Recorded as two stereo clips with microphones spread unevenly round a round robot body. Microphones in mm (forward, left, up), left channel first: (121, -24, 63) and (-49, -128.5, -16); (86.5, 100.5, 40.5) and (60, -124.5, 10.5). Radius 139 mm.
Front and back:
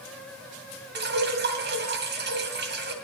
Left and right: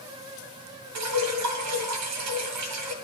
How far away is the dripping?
About 2 m.